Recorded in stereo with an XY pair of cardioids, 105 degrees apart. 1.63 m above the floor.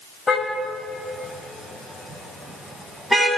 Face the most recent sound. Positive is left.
turn(degrees=0)